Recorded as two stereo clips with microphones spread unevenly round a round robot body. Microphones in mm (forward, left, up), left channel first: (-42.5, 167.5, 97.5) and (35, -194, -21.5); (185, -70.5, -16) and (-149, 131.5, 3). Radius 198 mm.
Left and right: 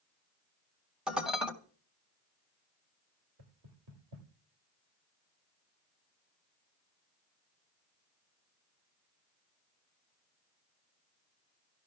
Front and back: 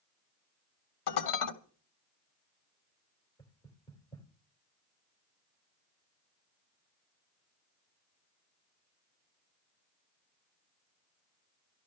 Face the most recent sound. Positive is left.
turn(degrees=-110)